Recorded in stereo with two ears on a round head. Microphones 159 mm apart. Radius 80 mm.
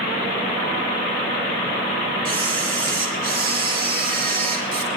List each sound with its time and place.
2.2 s a camera shutter: 50° right (ahead or behind), 3.5 m